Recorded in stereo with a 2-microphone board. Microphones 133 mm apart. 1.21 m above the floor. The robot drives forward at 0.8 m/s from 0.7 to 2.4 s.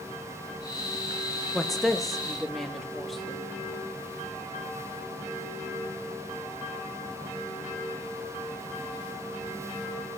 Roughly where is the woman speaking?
Centre.